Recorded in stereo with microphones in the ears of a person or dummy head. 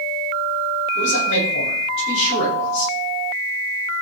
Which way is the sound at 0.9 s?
65° left (ahead or behind).